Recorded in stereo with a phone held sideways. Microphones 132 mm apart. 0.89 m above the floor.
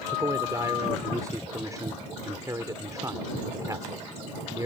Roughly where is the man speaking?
Right.